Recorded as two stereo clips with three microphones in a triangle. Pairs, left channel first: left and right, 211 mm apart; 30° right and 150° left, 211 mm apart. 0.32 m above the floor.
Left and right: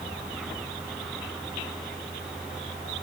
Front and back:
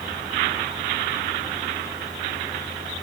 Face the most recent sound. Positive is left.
No sound to turn to.